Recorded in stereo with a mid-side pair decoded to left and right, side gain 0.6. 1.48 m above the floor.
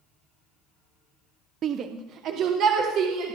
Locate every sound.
1.6 s a shout: 45° right, 0.6 m; by 3.4 s 60° right, 2.0 m